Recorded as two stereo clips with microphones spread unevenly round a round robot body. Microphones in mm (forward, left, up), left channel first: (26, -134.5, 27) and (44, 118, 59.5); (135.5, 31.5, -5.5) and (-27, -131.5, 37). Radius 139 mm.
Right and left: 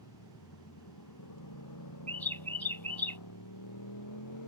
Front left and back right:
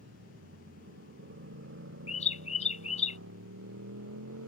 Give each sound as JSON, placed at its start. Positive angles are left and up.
{"t": 0.0, "sound": "a motorcycle", "azimuth_deg": -95}
{"t": 2.1, "sound": "a bird", "azimuth_deg": -15}